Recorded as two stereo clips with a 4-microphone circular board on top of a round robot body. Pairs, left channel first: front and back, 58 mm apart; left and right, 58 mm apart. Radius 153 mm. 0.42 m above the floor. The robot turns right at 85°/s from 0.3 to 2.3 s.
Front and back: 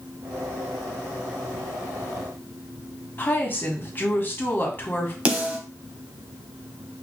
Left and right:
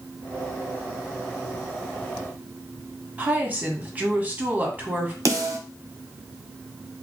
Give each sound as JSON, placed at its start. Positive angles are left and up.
{"t": 3.2, "sound": "a woman speaking", "azimuth_deg": -40, "distance_m": 1.6}
{"t": 5.2, "sound": "a snare drum", "azimuth_deg": -115, "distance_m": 1.5}